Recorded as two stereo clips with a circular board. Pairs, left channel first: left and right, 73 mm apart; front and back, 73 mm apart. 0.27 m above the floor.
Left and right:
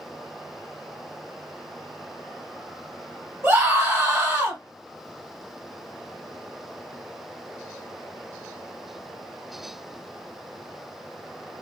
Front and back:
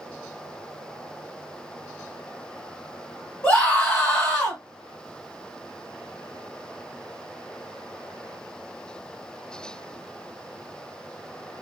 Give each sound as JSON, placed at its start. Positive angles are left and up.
{"t": 3.4, "sound": "a scream", "azimuth_deg": -50, "distance_m": 1.7}